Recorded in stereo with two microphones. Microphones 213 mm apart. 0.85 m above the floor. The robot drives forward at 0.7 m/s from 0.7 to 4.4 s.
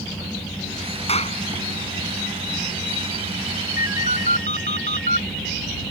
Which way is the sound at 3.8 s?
40° left (ahead or behind).